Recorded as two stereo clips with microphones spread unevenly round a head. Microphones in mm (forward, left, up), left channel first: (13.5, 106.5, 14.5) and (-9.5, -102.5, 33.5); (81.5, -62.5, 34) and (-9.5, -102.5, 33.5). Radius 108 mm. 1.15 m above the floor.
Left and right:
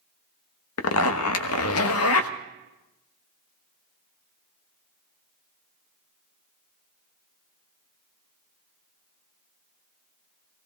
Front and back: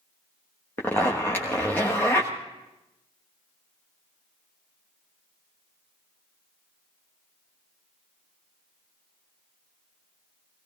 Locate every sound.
0.8 s a zipper: 100° left, 1.2 m